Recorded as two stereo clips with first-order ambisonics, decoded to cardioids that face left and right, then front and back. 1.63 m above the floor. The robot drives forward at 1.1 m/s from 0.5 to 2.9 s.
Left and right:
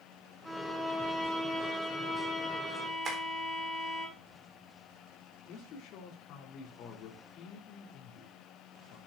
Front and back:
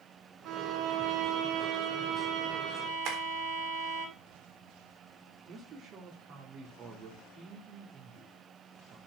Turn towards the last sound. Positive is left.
turn(degrees=130)